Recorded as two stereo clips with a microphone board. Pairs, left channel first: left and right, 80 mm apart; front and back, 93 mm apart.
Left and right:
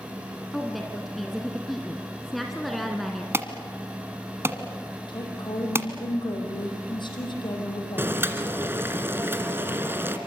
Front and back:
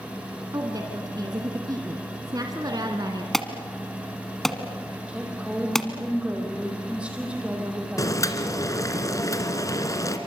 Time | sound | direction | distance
0.5 | a woman speaking | straight behind | 1.8 m
3.3 | an alarm | 80° right | 1.6 m
5.1 | a woman speaking | 105° left | 6 m
8.0 | boiling | 35° right | 2 m